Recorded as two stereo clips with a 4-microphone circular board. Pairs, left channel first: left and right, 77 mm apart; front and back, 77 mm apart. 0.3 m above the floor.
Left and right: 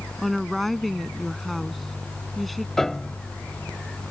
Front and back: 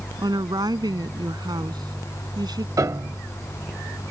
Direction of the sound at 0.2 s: Straight behind.